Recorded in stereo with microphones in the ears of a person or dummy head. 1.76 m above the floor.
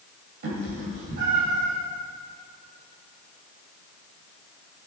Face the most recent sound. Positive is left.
turn(degrees=-55)  # may be behind; listen again after turning